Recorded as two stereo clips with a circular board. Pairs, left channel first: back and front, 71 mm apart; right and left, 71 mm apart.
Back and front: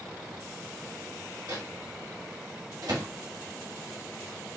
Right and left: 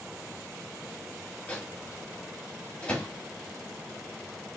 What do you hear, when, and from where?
1.5 s a microwave: 20° right, 1.5 m